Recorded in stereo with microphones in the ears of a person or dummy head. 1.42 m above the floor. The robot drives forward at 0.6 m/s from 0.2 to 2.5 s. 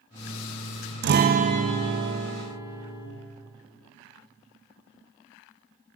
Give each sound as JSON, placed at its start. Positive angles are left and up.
{"t": 1.0, "sound": "a guitar", "side_deg": -55, "distance_m": 0.6}